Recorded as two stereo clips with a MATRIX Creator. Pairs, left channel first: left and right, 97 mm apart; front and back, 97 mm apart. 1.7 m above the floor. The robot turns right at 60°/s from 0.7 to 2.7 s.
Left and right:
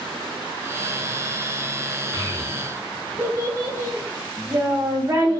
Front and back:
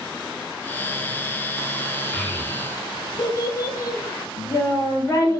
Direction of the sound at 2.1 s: 75° right.